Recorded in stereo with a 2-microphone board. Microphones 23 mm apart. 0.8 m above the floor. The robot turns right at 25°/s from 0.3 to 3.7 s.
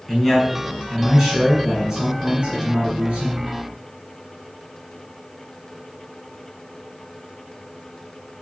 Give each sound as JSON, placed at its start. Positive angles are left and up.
{"t": 0.1, "sound": "a man speaking", "azimuth_deg": 170, "distance_m": 6.5}